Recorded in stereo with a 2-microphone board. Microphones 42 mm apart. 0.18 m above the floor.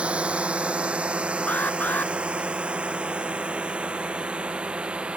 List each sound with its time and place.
0.0 s a drone: 25° right (ahead or behind)
1.5 s an alarm: 40° left (ahead or behind)